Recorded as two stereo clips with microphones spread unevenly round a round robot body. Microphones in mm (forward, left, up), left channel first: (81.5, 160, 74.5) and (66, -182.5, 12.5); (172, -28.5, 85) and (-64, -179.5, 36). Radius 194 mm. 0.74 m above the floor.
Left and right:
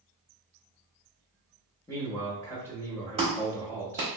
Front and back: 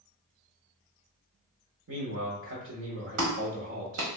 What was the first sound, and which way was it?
A man speaking, 175° left.